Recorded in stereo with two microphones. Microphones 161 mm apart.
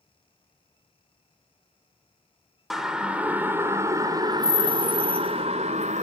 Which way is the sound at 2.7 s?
Centre (ahead or behind).